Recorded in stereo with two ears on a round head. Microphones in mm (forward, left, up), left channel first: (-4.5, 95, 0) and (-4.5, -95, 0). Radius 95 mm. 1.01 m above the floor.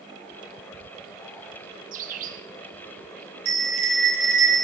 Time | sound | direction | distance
1.9 | a bird | 40° right (ahead or behind) | 0.7 m
3.5 | a bell | 60° right (ahead or behind) | 3.5 m